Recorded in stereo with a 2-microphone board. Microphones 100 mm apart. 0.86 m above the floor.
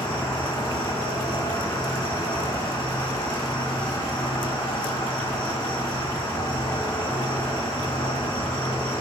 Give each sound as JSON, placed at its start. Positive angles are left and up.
{"t": 0.0, "sound": "an insect", "side_deg": 60, "distance_m": 1.6}